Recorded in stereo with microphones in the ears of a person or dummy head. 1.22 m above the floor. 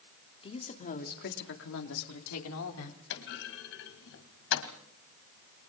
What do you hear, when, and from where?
0.4 s a woman speaking: 25° left (ahead or behind), 2.5 m; by 3.0 s 85° left, 3 m
3.1 s a clunk: 55° left (ahead or behind), 1.8 m